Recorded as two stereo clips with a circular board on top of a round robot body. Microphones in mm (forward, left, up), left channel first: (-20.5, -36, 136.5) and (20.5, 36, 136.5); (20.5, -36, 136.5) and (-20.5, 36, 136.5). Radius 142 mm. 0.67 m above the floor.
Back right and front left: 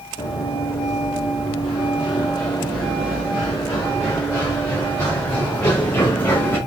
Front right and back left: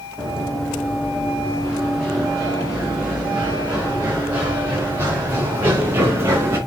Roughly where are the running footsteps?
Behind right.